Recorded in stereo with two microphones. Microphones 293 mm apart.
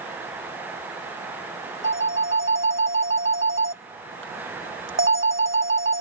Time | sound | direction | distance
1.8 | a phone ringing | 45° right (ahead or behind) | ?